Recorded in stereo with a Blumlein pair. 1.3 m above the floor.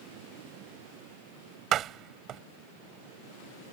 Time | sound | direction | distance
1.7 | a door slam | 30° right | ?